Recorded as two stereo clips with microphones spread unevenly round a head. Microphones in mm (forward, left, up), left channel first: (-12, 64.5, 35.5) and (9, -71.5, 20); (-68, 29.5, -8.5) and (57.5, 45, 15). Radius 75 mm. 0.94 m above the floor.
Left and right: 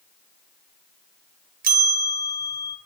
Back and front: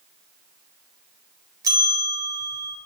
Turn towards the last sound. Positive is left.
turn(degrees=-65)